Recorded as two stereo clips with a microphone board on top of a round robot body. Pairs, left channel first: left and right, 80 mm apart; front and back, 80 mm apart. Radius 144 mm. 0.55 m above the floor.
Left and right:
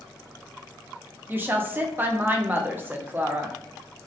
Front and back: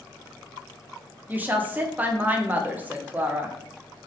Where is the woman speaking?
130° right, 0.7 m.